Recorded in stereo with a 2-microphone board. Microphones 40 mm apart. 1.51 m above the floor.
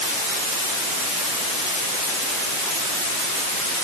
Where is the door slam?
I don't hear a door slam.